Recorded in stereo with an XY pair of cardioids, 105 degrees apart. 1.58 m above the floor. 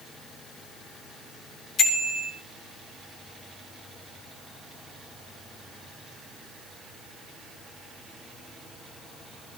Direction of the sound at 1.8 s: 55° left.